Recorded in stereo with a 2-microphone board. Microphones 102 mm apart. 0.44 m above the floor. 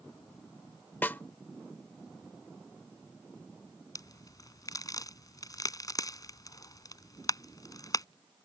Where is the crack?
35° left (ahead or behind).